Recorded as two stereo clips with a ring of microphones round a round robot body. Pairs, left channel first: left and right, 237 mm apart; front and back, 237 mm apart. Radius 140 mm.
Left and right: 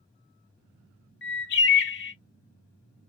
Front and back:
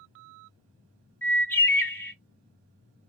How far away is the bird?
About 1.3 m.